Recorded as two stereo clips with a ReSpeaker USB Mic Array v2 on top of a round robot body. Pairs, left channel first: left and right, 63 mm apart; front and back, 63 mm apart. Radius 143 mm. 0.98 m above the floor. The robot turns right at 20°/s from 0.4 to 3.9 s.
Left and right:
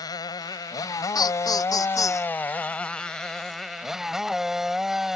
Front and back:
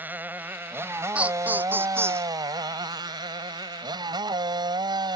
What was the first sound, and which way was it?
A motorcycle, 115° left.